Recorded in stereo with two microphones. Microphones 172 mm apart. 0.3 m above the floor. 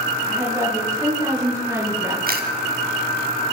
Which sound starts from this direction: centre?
A woman speaking, at 0.2 s.